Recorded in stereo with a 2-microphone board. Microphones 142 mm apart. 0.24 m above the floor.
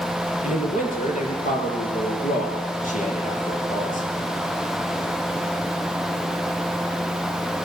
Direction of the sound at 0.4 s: 65° left (ahead or behind).